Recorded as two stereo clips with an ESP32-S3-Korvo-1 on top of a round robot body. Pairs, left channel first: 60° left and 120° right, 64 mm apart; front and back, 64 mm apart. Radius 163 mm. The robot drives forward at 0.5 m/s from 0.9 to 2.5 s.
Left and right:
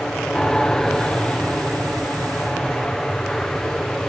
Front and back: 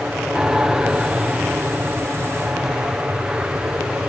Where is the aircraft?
125° left; by 4.1 s 130° left.